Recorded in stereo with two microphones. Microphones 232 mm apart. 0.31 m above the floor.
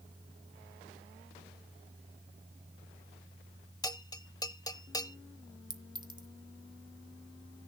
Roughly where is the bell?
Centre.